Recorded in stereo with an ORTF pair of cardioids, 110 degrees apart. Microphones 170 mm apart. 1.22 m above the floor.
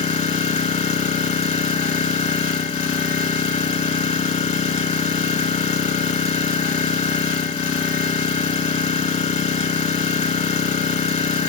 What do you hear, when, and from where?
0.0 s an engine running: 40° left, 1.6 m